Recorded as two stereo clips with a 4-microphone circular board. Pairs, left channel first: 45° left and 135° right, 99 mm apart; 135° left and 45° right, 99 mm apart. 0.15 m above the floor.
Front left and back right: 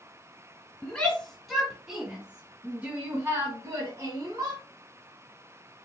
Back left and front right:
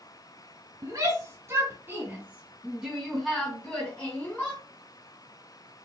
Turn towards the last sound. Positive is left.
turn(degrees=-160)